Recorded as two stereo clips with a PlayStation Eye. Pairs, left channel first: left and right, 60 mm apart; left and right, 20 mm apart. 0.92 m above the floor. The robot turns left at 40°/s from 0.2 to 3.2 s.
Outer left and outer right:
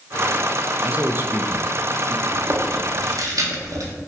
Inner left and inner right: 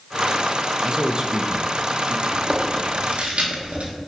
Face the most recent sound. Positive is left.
turn(degrees=-75)  # may be behind; listen again after turning